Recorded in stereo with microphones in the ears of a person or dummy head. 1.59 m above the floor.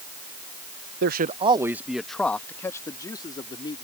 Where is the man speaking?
55° right (ahead or behind); by 3.8 s 25° left (ahead or behind).